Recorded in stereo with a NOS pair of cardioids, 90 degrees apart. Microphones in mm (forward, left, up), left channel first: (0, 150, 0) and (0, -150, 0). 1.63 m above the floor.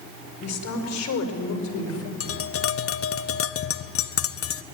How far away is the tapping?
About 0.9 m.